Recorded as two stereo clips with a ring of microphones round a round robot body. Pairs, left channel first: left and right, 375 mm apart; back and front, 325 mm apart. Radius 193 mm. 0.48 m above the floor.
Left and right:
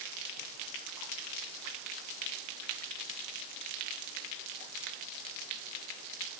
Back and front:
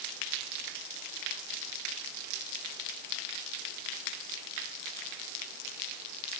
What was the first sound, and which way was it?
Only background noise.